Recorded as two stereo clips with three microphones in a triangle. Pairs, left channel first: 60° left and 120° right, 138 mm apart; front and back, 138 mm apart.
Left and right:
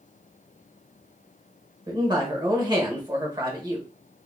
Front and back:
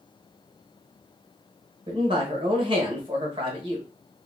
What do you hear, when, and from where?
1.9 s a man speaking: 160° right, 1.0 m